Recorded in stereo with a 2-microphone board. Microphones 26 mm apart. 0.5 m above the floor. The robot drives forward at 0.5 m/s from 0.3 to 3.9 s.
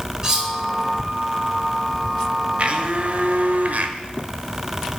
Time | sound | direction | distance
0.2 | cutlery clinking | 25° right (ahead or behind) | 2.0 m
2.6 | a blender | 45° right (ahead or behind) | 1.0 m